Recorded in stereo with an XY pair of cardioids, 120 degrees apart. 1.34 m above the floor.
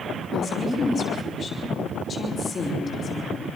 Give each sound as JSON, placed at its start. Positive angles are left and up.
{"t": 0.3, "sound": "a woman speaking", "azimuth_deg": 35, "distance_m": 5.0}